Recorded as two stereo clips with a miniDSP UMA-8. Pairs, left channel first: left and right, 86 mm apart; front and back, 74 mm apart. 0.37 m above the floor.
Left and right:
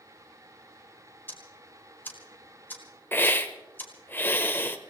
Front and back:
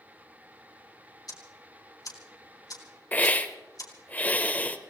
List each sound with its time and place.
1.3 s ticking: 25° left, 3 m
3.1 s a hiss: 45° left, 1.1 m